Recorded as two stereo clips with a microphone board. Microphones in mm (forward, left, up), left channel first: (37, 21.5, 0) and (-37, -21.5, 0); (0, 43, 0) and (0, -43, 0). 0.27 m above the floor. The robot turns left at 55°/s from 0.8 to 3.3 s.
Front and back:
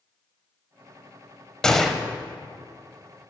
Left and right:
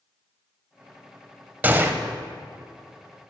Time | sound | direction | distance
1.6 | a gunshot | 45° right | 0.5 m